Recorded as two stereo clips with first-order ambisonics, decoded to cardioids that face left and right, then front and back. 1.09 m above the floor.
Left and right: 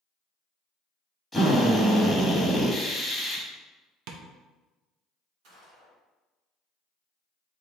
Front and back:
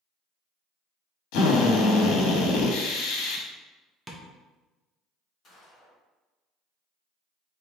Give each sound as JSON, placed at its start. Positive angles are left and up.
{"t": 1.3, "sound": "a drill", "azimuth_deg": 0, "distance_m": 1.1}
{"t": 4.1, "sound": "tapping", "azimuth_deg": -100, "distance_m": 0.6}
{"t": 5.4, "sound": "a gunshot", "azimuth_deg": -65, "distance_m": 1.9}